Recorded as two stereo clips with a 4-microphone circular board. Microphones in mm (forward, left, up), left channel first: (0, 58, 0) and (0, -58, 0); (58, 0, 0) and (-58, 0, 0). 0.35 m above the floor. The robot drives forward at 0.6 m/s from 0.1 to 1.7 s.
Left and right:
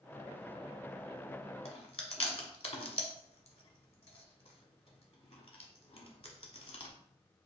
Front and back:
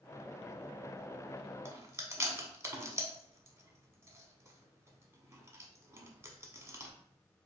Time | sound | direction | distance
1.6 | chewing | 115° left | 1.0 m